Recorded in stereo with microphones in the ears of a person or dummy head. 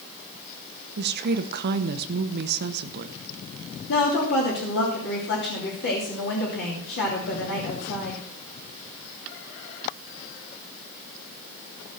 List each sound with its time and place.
1.0 s a woman speaking: 50° right (ahead or behind), 1.0 m
3.9 s a woman speaking: 60° left (ahead or behind), 3 m